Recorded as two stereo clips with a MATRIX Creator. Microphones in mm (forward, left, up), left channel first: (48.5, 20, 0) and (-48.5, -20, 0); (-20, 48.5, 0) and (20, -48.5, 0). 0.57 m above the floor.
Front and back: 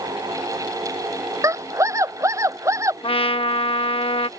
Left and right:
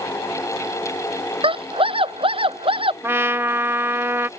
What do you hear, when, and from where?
1.4 s a scream: 95° right
3.0 s a trumpet: straight ahead